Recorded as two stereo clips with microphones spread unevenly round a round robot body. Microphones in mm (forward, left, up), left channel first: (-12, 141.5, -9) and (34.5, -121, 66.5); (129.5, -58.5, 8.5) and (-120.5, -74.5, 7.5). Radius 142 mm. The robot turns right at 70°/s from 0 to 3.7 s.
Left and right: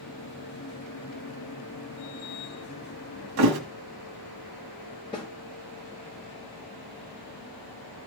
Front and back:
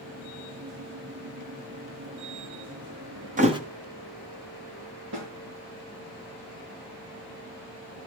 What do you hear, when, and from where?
3.4 s a thud: 120° right, 1.7 m; by 3.6 s 100° right, 1.7 m
5.1 s a snare drum: 170° left, 5.5 m